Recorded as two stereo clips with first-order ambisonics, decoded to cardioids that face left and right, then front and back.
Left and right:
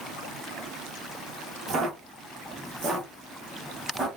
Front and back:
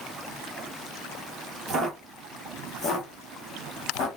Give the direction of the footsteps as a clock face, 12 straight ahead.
4 o'clock.